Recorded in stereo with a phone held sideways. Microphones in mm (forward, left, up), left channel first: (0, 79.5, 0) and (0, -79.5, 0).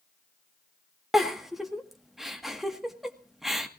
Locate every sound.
1.1 s a giggle: centre (ahead or behind), 1.7 m